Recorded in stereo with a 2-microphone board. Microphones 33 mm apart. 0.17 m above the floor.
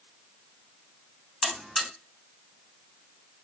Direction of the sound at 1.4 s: 5° right (ahead or behind).